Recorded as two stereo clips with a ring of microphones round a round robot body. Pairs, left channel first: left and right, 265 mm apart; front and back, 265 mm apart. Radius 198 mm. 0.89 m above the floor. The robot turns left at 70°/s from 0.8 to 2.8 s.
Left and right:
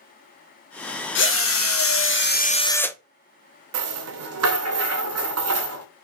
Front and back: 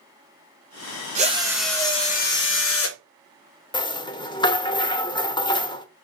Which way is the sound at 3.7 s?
75° right.